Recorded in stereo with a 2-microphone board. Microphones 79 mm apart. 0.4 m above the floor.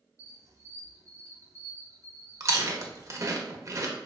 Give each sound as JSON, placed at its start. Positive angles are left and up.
{"t": 0.2, "sound": "a squeak", "side_deg": -50, "distance_m": 0.8}
{"t": 2.4, "sound": "chewing", "side_deg": -40, "distance_m": 0.5}